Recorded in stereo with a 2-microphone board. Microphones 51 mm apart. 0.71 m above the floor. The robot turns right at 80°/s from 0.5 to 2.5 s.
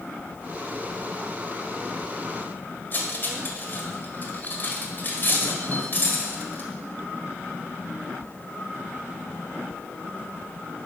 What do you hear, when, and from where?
2.9 s cutlery clinking: 40° left (ahead or behind), 1.5 m